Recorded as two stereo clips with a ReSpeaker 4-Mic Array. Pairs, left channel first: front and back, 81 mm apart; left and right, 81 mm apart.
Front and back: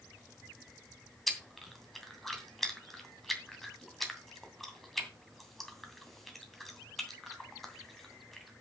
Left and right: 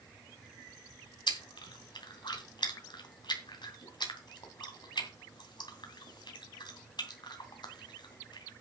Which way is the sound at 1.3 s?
90° left.